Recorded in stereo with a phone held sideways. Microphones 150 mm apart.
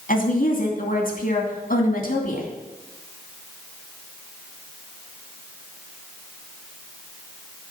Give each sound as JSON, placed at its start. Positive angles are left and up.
{"t": 0.1, "sound": "a woman speaking", "side_deg": 70, "distance_m": 2.5}